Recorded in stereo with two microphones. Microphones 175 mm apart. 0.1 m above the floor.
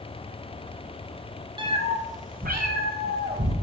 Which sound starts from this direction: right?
A cat meowing, at 1.6 s.